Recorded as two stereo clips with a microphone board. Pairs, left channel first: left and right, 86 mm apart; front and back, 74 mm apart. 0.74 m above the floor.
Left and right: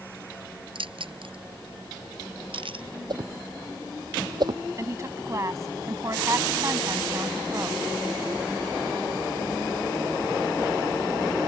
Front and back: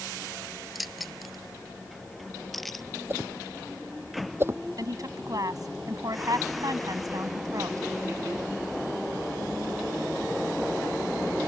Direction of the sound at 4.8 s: 145° right.